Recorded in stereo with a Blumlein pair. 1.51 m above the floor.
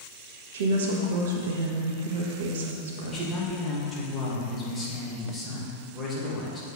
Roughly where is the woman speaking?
Ahead right.